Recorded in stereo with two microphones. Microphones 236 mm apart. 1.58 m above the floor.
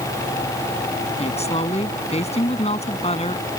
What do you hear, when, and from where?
1.2 s a woman speaking: 25° left (ahead or behind)